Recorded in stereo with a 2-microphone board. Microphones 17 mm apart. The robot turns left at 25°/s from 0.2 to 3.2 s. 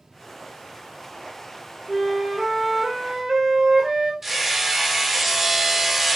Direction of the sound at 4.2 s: 20° right (ahead or behind).